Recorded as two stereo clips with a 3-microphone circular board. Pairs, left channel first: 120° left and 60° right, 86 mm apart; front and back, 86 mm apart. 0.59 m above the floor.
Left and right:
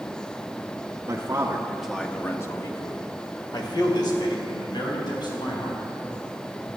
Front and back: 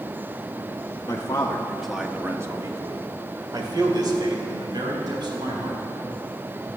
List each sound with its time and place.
1.1 s a man speaking: 35° right, 1.3 m; by 5.8 s 145° left, 5 m